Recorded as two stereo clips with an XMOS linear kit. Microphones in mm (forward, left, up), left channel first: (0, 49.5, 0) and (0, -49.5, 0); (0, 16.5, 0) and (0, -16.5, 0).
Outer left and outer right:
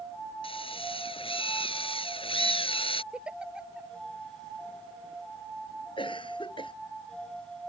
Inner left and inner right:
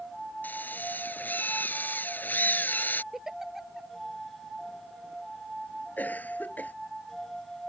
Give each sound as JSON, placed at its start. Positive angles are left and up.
{"t": 0.4, "sound": "a drill", "side_deg": 60}
{"t": 3.1, "sound": "a giggle", "side_deg": -10}
{"t": 6.0, "sound": "a cough", "side_deg": 55}